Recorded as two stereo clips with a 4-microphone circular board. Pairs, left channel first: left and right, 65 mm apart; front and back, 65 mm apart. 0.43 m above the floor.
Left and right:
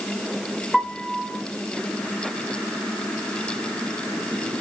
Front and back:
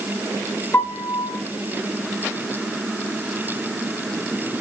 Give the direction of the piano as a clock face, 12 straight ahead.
12 o'clock.